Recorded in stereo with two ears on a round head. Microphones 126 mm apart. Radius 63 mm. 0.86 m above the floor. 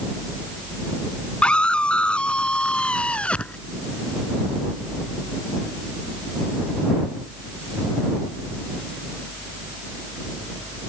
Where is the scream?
10° left (ahead or behind).